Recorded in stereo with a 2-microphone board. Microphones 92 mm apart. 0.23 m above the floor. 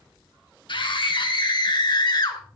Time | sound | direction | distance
0.7 | a scream | 60° left (ahead or behind) | 2.5 m